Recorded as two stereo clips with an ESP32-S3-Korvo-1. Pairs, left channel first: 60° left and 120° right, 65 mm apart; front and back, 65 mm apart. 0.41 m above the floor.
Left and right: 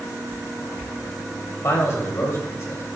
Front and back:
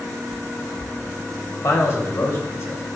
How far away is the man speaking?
About 2.5 m.